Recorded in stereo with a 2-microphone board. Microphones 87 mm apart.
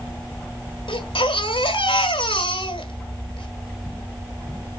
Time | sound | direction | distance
0.9 | a baby crying | 85° left | 1.4 m